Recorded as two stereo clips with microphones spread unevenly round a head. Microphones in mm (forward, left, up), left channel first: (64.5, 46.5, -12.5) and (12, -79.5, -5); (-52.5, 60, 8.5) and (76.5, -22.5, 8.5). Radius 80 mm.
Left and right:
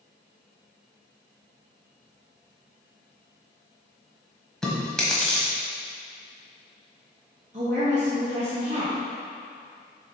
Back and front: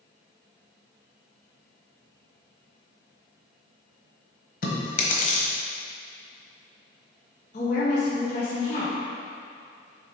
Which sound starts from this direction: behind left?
Chewing, at 4.6 s.